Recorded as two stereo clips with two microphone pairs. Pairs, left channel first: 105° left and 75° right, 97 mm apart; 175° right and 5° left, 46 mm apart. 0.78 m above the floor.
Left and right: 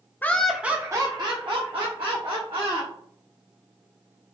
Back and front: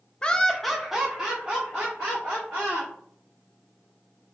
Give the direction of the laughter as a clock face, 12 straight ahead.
7 o'clock.